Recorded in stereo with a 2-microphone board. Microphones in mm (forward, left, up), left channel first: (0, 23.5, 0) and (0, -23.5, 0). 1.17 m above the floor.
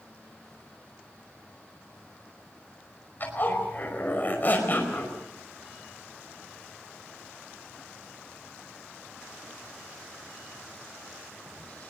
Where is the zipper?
40° left (ahead or behind), 5 m.